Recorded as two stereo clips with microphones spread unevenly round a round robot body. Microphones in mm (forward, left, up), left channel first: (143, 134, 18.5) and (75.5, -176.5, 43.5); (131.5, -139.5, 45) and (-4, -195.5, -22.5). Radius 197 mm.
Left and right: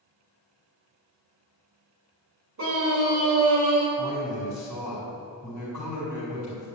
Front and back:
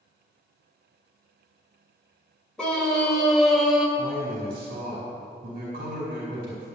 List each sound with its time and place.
2.6 s a scream: 70° right, 4 m; by 3.9 s 80° right, 3 m
4.0 s a man speaking: 175° right, 4 m